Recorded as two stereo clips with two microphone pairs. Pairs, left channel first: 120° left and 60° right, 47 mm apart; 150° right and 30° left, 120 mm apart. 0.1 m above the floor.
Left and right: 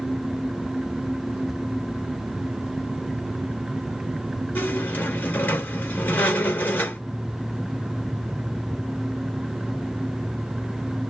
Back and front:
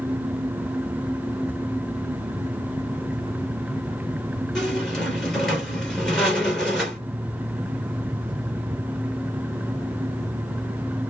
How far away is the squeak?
About 1.4 m.